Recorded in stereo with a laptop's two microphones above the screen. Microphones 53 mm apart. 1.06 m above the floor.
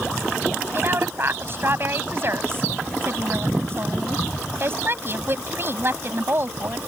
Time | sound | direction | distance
0.7 | a woman speaking | 45° right (ahead or behind) | ?